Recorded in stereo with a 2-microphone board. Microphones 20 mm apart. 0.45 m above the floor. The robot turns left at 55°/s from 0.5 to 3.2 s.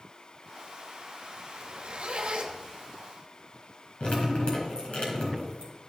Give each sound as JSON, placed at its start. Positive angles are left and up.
{"t": 1.5, "sound": "a zipper", "azimuth_deg": -65, "distance_m": 1.2}
{"t": 4.0, "sound": "dripping", "side_deg": 55, "distance_m": 3.5}